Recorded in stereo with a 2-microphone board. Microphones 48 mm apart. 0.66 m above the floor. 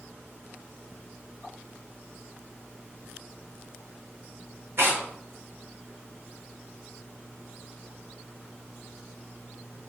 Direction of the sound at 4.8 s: 60° right (ahead or behind).